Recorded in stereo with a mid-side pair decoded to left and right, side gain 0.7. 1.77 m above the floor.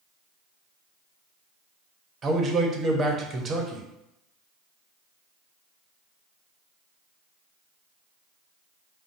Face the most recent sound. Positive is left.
turn(degrees=-30)